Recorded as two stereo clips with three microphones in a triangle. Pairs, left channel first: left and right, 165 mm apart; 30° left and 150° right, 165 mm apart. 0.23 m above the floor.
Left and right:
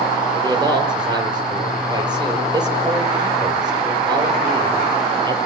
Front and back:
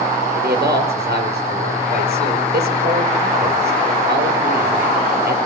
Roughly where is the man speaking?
Behind right.